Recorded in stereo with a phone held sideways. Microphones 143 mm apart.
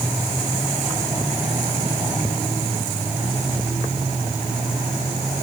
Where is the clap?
No clap in this recording.